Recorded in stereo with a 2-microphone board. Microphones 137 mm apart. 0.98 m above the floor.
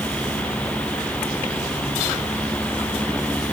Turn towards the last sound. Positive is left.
No sound to turn to.